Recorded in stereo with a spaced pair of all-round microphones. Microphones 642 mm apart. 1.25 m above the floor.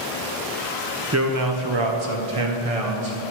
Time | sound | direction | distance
1.1 | a man speaking | 25° right (ahead or behind) | 0.9 m